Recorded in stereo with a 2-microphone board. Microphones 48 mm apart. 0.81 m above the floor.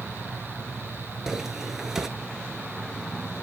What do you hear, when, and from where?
1.3 s footsteps: 10° right (ahead or behind), 0.9 m